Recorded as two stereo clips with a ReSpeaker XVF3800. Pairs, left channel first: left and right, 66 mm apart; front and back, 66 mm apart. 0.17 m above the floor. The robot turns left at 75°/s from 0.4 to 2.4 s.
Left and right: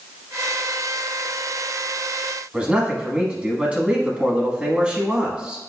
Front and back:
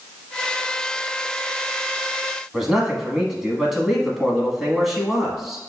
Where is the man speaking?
110° right, 1.0 m.